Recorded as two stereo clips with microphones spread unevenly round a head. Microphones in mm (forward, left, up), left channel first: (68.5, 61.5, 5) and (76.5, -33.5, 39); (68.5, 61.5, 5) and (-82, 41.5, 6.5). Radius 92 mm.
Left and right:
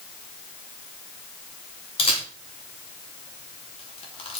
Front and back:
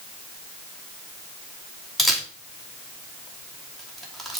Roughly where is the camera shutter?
Left.